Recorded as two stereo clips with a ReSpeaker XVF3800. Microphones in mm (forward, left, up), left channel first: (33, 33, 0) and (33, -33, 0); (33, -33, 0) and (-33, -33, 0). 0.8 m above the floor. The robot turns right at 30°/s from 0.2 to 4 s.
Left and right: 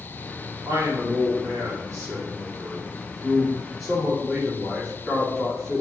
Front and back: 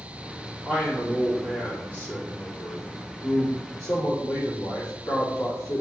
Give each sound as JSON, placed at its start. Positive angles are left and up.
{"t": 0.7, "sound": "a man speaking", "azimuth_deg": -95, "distance_m": 2.0}